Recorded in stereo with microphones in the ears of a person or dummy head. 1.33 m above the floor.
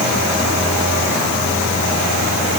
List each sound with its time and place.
Only background noise.